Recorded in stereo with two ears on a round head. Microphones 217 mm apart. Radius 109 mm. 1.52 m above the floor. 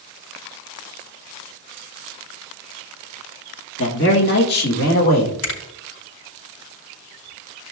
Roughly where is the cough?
No cough in this recording.